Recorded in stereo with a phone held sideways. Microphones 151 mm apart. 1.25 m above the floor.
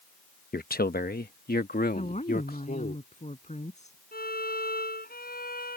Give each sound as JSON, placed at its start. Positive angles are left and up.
{"t": 0.5, "sound": "a man speaking", "side_deg": 75}
{"t": 1.9, "sound": "a woman speaking", "side_deg": 50}
{"t": 4.1, "sound": "a violin", "side_deg": 80}